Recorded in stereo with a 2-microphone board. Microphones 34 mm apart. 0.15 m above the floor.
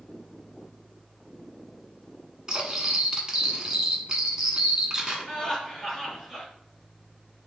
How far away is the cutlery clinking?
About 0.9 m.